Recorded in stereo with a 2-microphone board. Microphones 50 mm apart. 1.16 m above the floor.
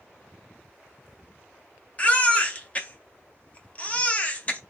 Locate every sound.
2.0 s a baby crying: 25° left (ahead or behind), 0.7 m